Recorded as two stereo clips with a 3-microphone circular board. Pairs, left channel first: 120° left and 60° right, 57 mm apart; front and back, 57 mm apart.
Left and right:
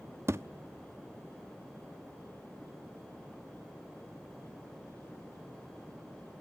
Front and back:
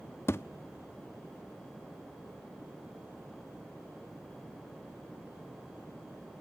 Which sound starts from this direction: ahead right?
A thud, at 0.3 s.